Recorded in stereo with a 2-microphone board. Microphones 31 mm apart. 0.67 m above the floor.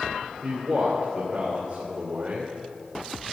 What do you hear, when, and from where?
0.4 s a man speaking: 20° right (ahead or behind), 2.5 m